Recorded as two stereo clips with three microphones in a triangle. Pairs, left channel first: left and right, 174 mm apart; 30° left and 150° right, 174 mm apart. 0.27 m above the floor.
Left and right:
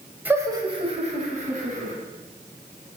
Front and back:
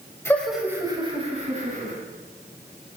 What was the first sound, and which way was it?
Laughter, 25° right.